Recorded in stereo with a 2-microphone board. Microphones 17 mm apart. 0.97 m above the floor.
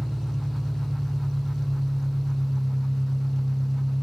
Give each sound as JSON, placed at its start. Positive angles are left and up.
{"t": 0.0, "sound": "an engine running", "side_deg": 40, "distance_m": 1.1}